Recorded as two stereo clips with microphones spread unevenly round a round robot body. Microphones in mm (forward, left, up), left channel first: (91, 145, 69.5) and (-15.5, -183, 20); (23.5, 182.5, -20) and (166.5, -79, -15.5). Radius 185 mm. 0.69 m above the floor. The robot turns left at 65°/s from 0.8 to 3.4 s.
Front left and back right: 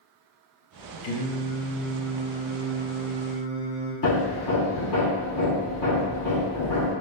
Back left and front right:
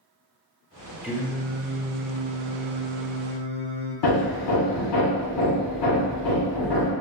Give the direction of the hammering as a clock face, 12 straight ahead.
8 o'clock.